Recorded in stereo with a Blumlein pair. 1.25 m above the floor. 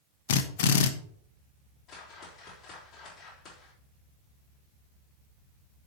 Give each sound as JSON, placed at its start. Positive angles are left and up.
{"t": 0.3, "sound": "a drill", "azimuth_deg": 55, "distance_m": 1.0}
{"t": 1.9, "sound": "a whoosh", "azimuth_deg": 25, "distance_m": 3.5}